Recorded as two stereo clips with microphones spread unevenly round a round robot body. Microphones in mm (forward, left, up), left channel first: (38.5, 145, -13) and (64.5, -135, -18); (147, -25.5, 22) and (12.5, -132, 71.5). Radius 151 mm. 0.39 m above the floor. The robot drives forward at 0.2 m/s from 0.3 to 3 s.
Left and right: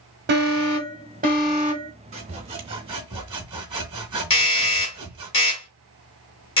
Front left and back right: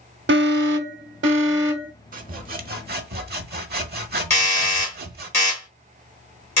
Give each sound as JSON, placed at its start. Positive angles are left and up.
{"t": 0.3, "sound": "an alarm", "azimuth_deg": -135, "distance_m": 0.7}
{"t": 2.1, "sound": "sawing", "azimuth_deg": -130, "distance_m": 0.7}
{"t": 4.3, "sound": "a doorbell", "azimuth_deg": 85, "distance_m": 2.0}